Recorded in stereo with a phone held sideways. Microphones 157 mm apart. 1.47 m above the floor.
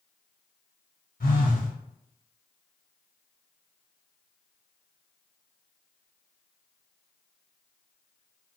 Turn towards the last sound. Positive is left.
turn(degrees=75)  # may be behind; listen again after turning